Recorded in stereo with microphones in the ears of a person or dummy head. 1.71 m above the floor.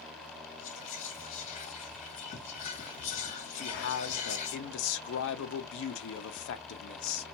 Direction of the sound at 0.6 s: 40° left (ahead or behind).